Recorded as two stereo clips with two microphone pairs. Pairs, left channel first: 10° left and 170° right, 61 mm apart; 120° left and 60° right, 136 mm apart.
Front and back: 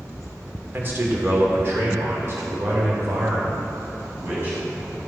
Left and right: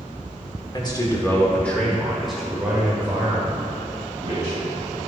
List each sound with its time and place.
0.7 s a man speaking: 155° left, 1.7 m; by 5.0 s 115° right, 4 m